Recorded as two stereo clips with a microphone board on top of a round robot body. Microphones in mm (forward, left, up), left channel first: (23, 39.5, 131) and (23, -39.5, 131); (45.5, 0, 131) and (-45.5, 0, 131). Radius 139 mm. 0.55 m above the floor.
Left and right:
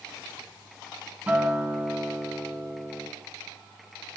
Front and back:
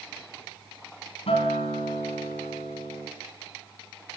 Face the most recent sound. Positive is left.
turn(degrees=-15)